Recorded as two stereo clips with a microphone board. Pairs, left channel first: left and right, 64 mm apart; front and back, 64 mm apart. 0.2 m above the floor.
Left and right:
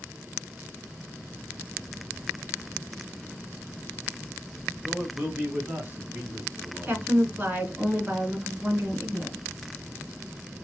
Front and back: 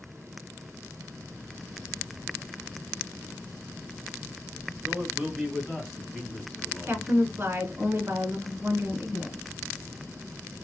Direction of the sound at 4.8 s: 150° right.